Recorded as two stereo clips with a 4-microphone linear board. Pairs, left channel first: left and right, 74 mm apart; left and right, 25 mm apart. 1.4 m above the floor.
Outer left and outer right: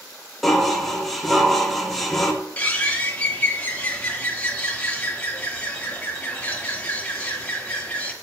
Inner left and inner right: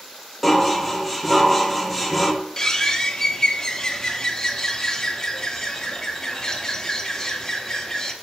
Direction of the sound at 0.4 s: Centre (ahead or behind).